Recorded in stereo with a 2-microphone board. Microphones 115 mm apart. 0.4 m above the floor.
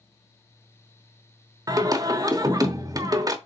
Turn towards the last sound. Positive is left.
turn(degrees=-35)  # may be behind; listen again after turning